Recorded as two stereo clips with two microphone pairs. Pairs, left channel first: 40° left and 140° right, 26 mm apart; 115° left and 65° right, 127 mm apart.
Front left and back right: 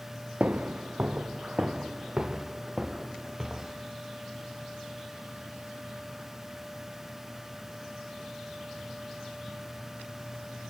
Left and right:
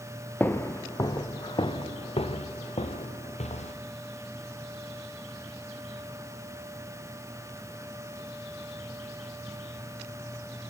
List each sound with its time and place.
0.4 s footsteps: 170° right, 1.7 m; by 3.7 s 140° left, 3.5 m